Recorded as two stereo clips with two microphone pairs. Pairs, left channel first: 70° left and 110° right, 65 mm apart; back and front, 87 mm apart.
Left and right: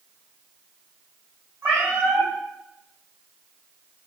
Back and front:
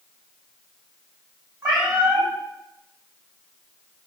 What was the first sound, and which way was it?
A cat meowing, 55° right.